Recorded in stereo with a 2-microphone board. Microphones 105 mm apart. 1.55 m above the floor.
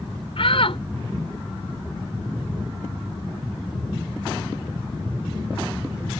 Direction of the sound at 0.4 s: 65° left (ahead or behind).